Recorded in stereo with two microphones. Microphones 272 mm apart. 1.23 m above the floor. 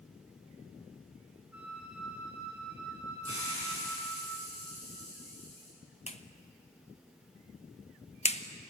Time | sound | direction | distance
1.5 | a flute | 60° left (ahead or behind) | 8.5 m
3.2 | a hiss | 55° left (ahead or behind) | 8 m
6.1 | a clap | 25° left (ahead or behind) | 1.1 m